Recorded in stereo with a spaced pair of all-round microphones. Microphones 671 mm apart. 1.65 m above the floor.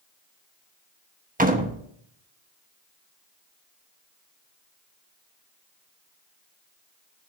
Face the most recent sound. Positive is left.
turn(degrees=-10)  # may be behind; listen again after turning